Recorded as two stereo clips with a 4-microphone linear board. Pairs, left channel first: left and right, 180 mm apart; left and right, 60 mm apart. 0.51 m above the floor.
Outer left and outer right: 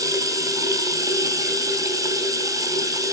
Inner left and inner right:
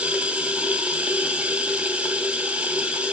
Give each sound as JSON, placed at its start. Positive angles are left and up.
{"t": 0.0, "sound": "running water", "side_deg": -20, "distance_m": 2.0}